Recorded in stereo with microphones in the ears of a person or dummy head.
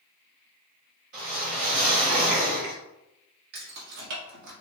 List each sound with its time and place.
1.1 s a whoosh: 45° right (ahead or behind), 2.5 m
3.5 s keys jangling: 60° right (ahead or behind), 1.6 m